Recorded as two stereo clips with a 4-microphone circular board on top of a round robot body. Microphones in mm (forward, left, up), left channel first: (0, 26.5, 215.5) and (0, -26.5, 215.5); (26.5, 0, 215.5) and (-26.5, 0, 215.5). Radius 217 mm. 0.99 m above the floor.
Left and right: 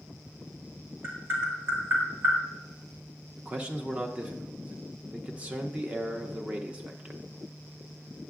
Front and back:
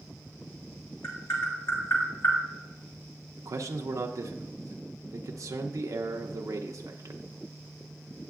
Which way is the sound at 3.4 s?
160° right.